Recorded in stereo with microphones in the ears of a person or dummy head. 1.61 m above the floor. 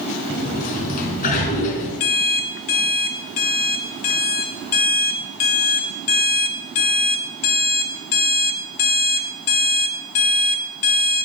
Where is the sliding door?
45° left (ahead or behind), 3.5 m.